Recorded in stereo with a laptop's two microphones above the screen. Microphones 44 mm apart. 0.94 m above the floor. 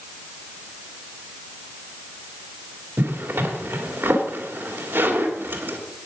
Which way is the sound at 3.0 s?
60° right (ahead or behind).